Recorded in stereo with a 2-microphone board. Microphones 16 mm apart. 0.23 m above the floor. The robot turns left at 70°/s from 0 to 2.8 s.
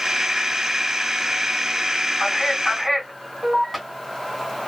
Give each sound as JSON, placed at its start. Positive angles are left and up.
{"t": 2.2, "sound": "a man speaking", "azimuth_deg": 40, "distance_m": 2.0}